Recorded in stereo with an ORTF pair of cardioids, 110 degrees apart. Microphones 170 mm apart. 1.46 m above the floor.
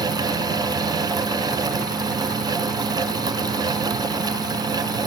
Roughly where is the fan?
Ahead right.